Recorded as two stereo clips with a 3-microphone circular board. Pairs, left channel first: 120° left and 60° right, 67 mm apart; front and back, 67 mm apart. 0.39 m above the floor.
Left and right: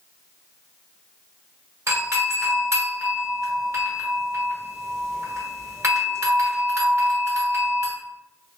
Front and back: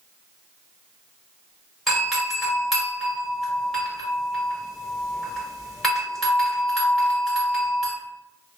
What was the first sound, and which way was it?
A doorbell, 85° right.